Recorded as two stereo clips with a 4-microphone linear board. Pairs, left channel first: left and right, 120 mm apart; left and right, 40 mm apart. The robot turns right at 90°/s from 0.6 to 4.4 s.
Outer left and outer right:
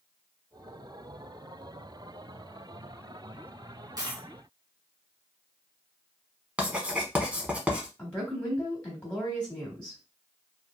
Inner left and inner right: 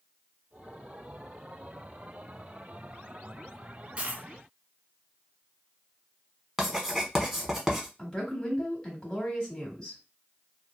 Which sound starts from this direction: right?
A dropped coin, at 4.0 s.